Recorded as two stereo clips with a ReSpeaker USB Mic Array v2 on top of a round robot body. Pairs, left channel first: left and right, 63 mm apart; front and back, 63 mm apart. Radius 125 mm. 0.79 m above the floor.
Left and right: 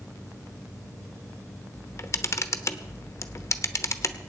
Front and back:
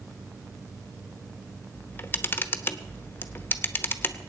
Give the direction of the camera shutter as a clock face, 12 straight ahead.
10 o'clock.